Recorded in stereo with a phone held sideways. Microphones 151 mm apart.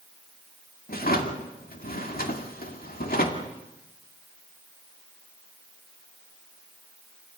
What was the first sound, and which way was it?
A drawer, 75° left (ahead or behind).